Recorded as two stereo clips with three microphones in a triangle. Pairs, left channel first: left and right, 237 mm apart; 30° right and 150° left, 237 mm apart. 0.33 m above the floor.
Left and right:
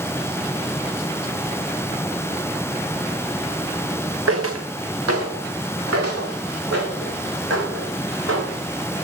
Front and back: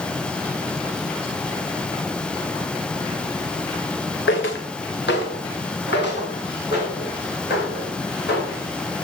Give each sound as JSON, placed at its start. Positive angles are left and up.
{"t": 4.3, "sound": "footsteps", "azimuth_deg": -70, "distance_m": 1.4}